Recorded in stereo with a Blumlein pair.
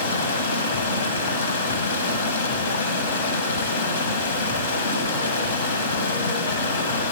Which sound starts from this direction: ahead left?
Running water, at 0.0 s.